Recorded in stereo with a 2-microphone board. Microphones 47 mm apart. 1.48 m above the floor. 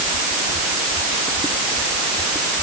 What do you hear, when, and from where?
Only background noise.